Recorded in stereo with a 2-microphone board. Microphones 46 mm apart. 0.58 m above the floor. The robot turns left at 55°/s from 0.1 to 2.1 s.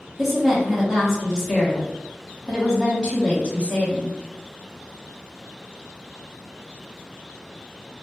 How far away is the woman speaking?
About 1.1 m.